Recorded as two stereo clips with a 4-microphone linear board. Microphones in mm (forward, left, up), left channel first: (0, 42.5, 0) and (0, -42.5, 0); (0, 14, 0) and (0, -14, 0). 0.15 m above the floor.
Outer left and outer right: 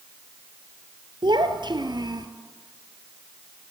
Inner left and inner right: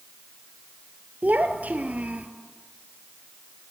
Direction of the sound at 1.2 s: 70° right (ahead or behind).